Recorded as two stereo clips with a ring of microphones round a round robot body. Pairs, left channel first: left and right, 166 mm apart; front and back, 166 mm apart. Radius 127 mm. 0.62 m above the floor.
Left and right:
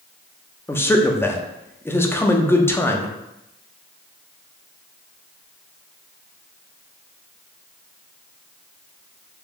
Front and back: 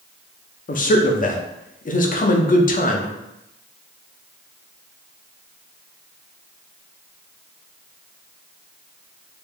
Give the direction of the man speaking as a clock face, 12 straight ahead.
11 o'clock.